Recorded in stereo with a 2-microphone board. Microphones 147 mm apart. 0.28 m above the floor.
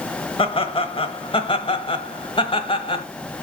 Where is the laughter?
35° left (ahead or behind), 1.1 m.